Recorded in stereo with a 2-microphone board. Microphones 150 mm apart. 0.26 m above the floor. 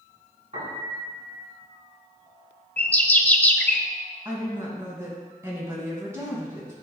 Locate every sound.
0.5 s a piano: 45° right (ahead or behind), 2.5 m
2.8 s a bird: 10° left (ahead or behind), 0.6 m
4.2 s a woman speaking: 20° right (ahead or behind), 2 m